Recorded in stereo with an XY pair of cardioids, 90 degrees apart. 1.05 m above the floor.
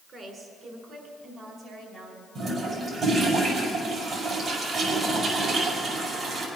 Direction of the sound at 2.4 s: 65° right.